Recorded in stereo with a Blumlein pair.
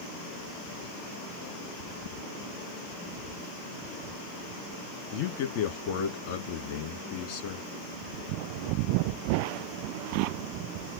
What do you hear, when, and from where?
5.1 s a man speaking: 45° left, 1.9 m